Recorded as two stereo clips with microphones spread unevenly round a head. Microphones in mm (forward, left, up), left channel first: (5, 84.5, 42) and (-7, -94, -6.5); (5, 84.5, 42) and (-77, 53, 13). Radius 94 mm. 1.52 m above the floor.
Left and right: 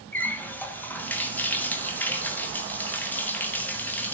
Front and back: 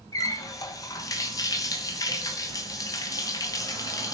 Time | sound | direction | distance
0.1 | a running tap | 20° left | 0.9 m